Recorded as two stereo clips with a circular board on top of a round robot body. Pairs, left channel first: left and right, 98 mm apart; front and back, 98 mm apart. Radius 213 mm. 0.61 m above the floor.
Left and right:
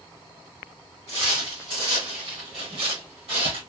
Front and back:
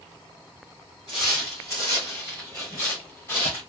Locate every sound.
1.1 s footsteps: 35° right, 0.6 m; by 3.6 s 60° right, 1.8 m